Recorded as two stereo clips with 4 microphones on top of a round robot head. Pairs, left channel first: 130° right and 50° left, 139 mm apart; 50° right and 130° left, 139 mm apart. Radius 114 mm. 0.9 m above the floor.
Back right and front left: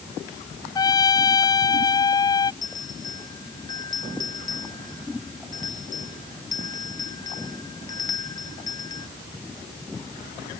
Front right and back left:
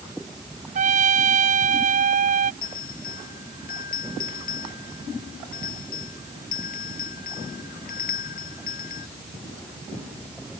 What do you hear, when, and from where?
0.8 s a trumpet: 165° left
2.6 s a bell: 65° right